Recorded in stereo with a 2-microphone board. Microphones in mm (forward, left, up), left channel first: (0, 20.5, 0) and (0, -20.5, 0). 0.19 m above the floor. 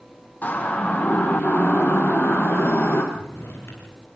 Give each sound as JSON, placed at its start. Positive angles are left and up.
{"t": 0.4, "sound": "a siren", "side_deg": 45, "distance_m": 7.5}
{"t": 3.1, "sound": "a drawer", "side_deg": 70, "distance_m": 5.5}